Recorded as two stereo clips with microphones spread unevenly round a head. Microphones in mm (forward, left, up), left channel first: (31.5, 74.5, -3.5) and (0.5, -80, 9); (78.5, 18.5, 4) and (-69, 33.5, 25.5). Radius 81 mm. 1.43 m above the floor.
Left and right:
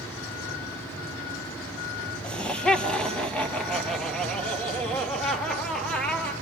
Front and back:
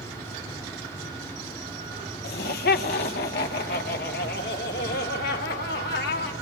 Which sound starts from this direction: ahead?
Laughter, at 2.2 s.